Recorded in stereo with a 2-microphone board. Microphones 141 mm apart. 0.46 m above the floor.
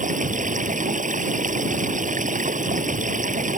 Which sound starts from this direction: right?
Running water, at 0.0 s.